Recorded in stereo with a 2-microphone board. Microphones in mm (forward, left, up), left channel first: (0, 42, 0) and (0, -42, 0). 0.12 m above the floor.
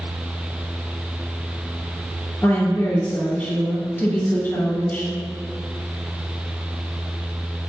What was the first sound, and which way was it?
A woman speaking, 35° left (ahead or behind).